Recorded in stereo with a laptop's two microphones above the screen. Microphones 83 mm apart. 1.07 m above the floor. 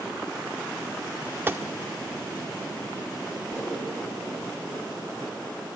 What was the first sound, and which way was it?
A gunshot, 25° right (ahead or behind).